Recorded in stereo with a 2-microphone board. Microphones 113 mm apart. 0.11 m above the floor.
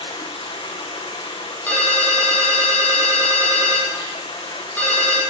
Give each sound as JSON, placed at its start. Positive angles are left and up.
{"t": 0.0, "sound": "running water", "side_deg": 45, "distance_m": 2.5}
{"t": 1.7, "sound": "a ringtone", "side_deg": 15, "distance_m": 3.0}